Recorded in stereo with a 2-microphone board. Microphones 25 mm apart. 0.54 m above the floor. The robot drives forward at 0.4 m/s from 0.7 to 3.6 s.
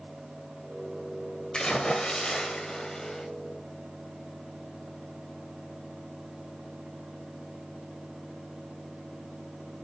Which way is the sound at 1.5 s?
35° left (ahead or behind).